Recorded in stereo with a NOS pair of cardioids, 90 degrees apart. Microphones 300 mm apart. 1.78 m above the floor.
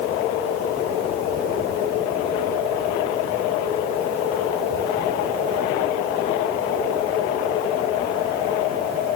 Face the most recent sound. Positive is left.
No sound to turn to.